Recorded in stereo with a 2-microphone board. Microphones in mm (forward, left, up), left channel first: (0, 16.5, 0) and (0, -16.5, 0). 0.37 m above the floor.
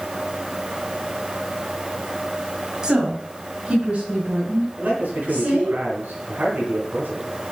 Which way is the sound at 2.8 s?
20° right (ahead or behind).